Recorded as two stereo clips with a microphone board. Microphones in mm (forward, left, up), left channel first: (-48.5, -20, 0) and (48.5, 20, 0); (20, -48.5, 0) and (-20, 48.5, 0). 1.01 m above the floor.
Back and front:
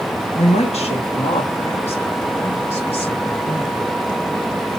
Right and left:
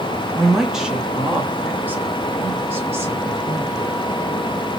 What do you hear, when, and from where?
0.3 s a woman speaking: 155° right, 0.9 m; by 3.9 s 175° left, 3 m